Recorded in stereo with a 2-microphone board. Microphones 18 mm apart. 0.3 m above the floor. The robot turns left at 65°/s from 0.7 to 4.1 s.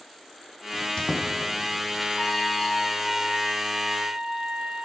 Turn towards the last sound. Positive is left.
turn(degrees=-85)